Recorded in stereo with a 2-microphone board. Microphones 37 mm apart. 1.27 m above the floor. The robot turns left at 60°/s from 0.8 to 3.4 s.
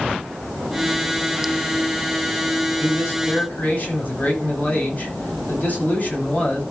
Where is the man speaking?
75° left, 9 m; by 6.6 s 40° left, 9 m.